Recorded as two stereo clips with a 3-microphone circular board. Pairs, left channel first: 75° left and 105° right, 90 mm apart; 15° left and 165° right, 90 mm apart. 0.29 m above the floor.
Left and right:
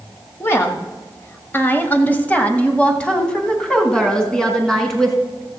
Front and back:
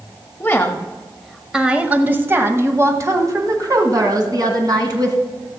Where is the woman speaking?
50° left, 1.0 m; by 5.2 s 160° left, 2.5 m.